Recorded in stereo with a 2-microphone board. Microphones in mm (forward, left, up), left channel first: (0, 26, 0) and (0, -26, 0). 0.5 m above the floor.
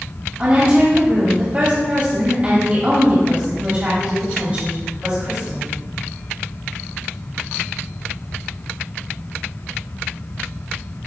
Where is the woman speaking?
30° right (ahead or behind), 2.5 m.